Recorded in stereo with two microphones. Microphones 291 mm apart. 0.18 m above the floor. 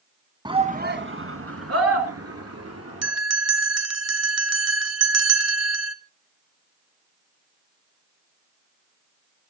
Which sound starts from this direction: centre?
A shout, at 0.5 s.